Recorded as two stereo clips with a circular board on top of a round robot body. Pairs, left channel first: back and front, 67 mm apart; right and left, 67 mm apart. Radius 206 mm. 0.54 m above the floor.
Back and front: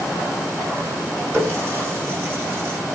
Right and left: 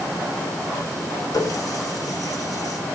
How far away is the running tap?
About 6.5 m.